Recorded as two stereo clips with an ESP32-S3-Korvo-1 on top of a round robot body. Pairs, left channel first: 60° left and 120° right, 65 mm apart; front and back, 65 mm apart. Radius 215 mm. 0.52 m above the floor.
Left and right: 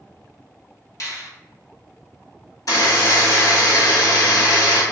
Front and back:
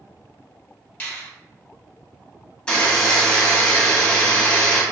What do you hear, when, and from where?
1.0 s a finger snap: 55° left, 1.8 m
2.7 s a buzzer: 70° left, 1.6 m